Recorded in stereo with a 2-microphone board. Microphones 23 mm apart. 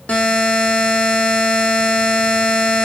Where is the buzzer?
75° left (ahead or behind), 1.7 m.